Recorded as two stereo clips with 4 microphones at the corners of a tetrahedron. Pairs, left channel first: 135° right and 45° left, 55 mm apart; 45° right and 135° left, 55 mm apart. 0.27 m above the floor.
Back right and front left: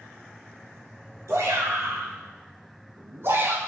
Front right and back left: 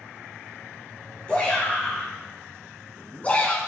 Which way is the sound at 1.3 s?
25° left.